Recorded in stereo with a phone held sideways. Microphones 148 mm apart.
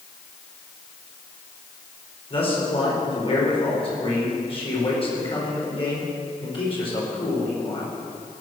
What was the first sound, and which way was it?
A man speaking, 40° left (ahead or behind).